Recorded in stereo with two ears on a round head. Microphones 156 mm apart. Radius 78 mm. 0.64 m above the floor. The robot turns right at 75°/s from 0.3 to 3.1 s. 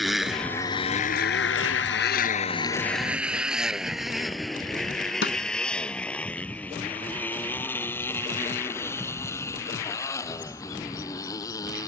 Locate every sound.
0.0 s a motorcycle: centre (ahead or behind); by 11.9 s 20° left (ahead or behind)
5.2 s a snare drum: 70° left (ahead or behind)